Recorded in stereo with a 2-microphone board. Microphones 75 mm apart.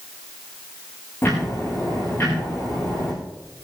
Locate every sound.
1.2 s ticking: 25° left (ahead or behind), 9 m